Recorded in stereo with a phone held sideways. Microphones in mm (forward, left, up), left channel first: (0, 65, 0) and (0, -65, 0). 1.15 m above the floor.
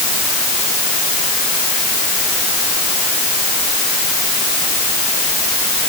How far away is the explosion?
No explosion in this recording.